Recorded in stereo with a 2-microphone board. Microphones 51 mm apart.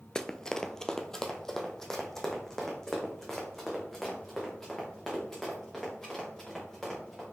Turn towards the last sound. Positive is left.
turn(degrees=10)  # may be behind; listen again after turning